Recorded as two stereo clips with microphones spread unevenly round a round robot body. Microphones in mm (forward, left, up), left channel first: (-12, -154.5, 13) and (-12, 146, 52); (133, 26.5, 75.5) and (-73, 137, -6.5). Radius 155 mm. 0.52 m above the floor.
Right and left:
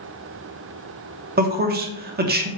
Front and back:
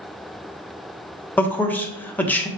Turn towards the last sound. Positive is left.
turn(degrees=95)